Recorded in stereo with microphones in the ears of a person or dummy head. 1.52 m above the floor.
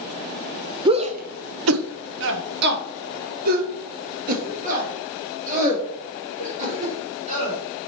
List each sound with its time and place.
0.8 s a shout: 20° right (ahead or behind), 0.7 m; by 7.6 s 40° right (ahead or behind), 5 m